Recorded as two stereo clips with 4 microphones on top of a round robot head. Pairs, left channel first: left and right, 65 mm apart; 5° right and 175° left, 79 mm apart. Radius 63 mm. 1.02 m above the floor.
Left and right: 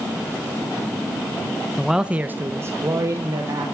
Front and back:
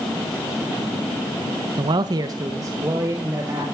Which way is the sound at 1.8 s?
175° left.